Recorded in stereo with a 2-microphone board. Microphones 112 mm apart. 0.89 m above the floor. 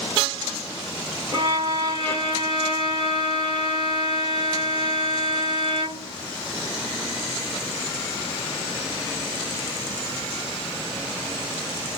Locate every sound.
1.3 s a violin: 40° right (ahead or behind), 1.7 m